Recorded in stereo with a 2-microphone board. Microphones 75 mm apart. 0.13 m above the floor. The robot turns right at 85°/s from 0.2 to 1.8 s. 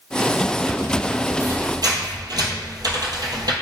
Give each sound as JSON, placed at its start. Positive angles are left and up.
{"t": 1.4, "sound": "a squeak", "side_deg": -35, "distance_m": 0.6}